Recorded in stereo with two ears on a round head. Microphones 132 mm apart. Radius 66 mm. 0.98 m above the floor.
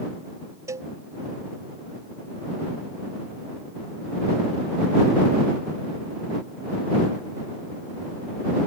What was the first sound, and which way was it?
A cowbell, 20° right (ahead or behind).